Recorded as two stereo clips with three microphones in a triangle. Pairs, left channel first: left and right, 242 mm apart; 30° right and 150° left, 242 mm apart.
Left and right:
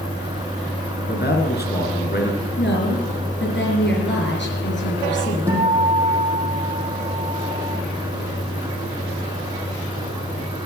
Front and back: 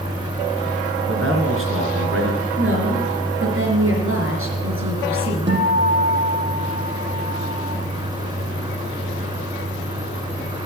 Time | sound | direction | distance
1.0 | a man speaking | 130° left | 3.5 m
2.6 | a woman speaking | 125° left | 4 m
5.5 | a guitar | 170° right | 5.5 m